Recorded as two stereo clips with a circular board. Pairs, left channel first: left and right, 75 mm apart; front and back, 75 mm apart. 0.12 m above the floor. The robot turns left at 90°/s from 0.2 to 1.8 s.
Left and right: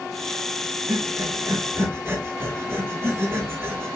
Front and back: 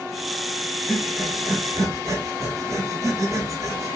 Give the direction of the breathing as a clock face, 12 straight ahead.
2 o'clock.